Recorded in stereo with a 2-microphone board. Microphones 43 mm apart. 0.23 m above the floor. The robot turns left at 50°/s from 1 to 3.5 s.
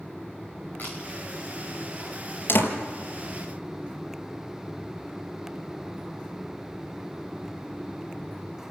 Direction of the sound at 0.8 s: 45° left (ahead or behind).